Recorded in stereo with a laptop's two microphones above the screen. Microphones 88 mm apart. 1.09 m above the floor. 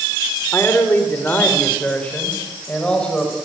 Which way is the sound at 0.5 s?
25° left (ahead or behind).